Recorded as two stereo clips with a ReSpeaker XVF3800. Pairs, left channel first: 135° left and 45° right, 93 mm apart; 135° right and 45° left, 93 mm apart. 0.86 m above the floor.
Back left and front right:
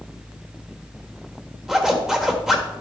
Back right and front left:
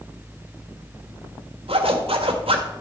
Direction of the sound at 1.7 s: 40° left.